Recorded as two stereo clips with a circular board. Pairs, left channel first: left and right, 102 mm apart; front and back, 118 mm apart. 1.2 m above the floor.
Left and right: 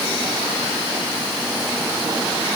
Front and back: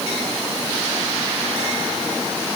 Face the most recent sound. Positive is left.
No sound to turn to.